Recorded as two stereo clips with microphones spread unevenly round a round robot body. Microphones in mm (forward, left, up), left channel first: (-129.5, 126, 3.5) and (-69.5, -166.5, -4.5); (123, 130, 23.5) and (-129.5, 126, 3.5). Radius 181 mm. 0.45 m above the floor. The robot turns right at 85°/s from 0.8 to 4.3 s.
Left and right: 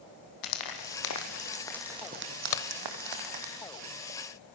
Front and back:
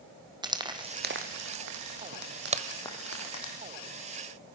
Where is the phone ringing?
No phone ringing in this recording.